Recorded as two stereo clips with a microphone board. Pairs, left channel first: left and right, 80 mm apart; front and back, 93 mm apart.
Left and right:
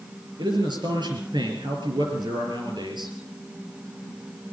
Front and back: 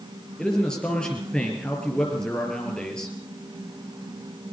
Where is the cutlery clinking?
No cutlery clinking in this recording.